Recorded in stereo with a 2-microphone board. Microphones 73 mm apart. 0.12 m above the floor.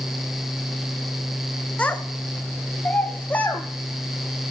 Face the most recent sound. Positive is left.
turn(degrees=20)  # may be behind; listen again after turning